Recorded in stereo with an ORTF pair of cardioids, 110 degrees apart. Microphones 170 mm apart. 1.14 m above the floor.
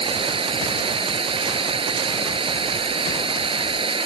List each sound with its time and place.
0.0 s running water: 30° right